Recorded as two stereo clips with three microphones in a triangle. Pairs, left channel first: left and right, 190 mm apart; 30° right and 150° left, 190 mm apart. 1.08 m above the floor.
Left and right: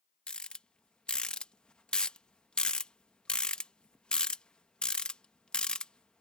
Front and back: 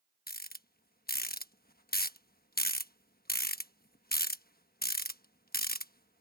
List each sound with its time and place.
0.3 s a rattle: 5° left